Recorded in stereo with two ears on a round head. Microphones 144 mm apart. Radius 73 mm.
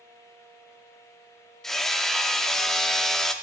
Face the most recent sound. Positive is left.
turn(degrees=0)  # may be behind; listen again after turning